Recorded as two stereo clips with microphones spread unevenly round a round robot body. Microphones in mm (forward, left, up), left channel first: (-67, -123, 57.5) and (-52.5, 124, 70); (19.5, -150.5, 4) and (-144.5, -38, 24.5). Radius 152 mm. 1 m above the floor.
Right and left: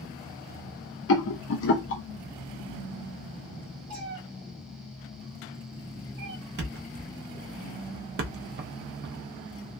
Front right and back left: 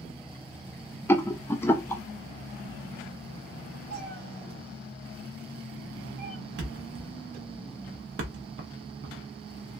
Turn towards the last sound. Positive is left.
turn(degrees=130)